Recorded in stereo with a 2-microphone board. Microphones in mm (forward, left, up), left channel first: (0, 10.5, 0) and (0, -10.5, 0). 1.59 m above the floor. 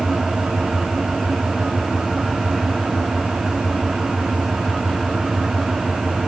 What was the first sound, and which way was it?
An engine running, 35° right (ahead or behind).